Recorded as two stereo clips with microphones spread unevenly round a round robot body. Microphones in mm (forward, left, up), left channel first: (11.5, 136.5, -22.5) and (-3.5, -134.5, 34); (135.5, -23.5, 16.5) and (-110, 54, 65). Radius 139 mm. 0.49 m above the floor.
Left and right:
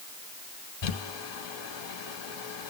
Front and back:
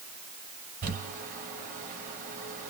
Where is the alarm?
No alarm in this recording.